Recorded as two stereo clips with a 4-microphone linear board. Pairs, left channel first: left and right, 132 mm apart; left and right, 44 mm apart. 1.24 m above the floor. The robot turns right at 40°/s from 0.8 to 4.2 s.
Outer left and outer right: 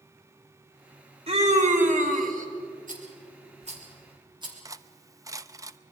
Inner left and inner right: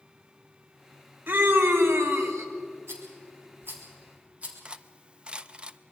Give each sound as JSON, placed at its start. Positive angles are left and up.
{"t": 1.3, "sound": "a scream", "azimuth_deg": -130, "distance_m": 3.0}
{"t": 2.9, "sound": "a rattle", "side_deg": -80, "distance_m": 3.5}
{"t": 4.7, "sound": "cutlery clinking", "side_deg": -25, "distance_m": 0.5}